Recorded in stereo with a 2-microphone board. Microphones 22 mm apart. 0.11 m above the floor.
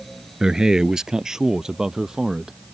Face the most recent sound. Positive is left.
turn(degrees=-20)  # may be behind; listen again after turning